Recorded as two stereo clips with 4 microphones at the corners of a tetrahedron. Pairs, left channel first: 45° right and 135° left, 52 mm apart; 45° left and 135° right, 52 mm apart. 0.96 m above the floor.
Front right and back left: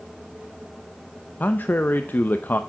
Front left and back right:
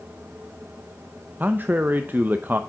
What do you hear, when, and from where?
1.4 s a man speaking: 90° right, 0.5 m